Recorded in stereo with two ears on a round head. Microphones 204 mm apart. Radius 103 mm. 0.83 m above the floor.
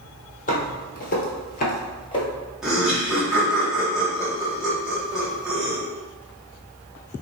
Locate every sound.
0.5 s footsteps: 35° left (ahead or behind), 1.5 m; by 2.3 s 20° left (ahead or behind), 1.2 m
2.6 s laughter: centre (ahead or behind), 1.6 m